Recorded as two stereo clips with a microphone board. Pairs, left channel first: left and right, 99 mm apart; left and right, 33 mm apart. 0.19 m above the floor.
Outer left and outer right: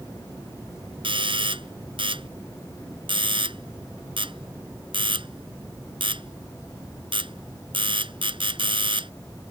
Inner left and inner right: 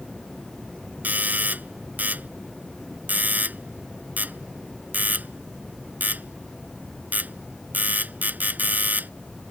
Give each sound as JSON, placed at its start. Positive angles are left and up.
{"t": 1.0, "sound": "a doorbell", "side_deg": -60}